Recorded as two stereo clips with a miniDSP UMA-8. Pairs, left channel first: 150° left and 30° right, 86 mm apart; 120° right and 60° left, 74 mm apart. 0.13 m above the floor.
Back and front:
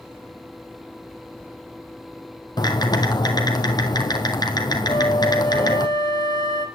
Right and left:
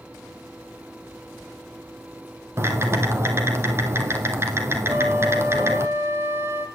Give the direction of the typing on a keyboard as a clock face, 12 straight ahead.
8 o'clock.